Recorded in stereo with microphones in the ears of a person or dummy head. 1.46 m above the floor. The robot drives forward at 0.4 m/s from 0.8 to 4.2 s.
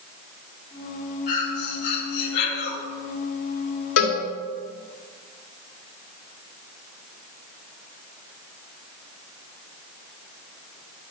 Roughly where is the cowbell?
Left.